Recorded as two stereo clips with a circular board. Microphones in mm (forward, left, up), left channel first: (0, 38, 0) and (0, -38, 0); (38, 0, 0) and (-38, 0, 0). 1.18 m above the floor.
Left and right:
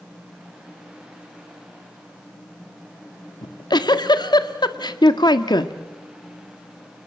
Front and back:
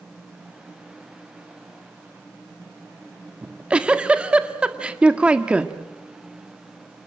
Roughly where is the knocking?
I don't hear knocking.